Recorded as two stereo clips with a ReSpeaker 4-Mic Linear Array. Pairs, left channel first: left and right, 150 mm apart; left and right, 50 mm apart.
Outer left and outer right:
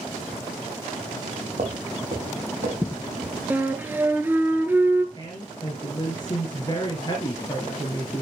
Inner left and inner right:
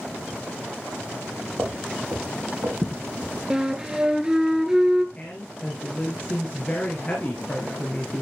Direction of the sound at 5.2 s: 30° left (ahead or behind).